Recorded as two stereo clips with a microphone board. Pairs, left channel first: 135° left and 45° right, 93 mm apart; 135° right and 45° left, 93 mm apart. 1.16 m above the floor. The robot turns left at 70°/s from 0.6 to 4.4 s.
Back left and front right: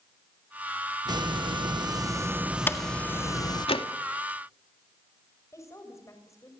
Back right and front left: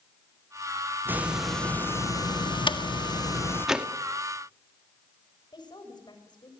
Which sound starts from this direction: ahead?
A hiss, at 1.1 s.